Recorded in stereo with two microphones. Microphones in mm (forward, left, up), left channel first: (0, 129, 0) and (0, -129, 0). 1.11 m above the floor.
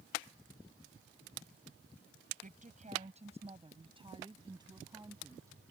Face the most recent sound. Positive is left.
turn(degrees=-10)  # may be behind; listen again after turning